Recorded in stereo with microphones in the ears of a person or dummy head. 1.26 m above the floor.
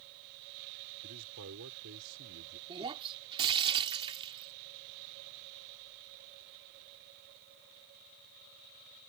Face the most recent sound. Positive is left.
turn(degrees=-25)  # may be behind; listen again after turning